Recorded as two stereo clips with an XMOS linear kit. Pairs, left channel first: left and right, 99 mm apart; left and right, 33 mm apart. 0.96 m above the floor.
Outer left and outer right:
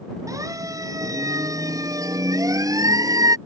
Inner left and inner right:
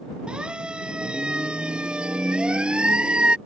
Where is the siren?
35° right (ahead or behind).